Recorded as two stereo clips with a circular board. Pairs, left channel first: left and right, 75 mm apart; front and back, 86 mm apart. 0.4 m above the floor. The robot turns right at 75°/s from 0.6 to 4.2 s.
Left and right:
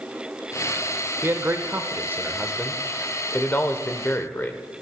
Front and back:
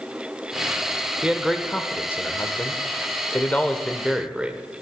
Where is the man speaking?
115° right, 0.9 m; by 4.6 s 110° left, 0.9 m.